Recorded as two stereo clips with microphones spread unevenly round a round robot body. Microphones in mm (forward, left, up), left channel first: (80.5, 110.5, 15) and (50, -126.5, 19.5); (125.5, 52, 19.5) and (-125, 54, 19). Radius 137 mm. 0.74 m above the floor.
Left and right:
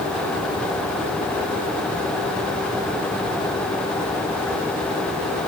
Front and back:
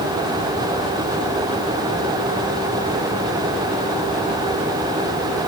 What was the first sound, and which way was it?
Only background noise.